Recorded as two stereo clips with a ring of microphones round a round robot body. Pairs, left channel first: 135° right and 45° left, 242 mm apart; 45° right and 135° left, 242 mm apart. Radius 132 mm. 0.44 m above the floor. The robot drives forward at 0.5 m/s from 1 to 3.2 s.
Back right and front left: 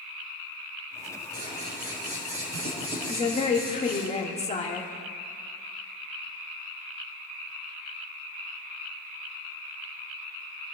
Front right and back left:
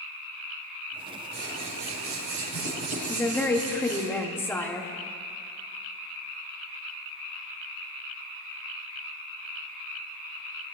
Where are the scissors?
95° left, 3 m; by 4.1 s 115° left, 3.5 m.